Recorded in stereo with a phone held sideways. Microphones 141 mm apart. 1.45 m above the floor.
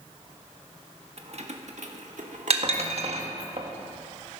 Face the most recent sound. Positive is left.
turn(degrees=-50)  # may be behind; listen again after turning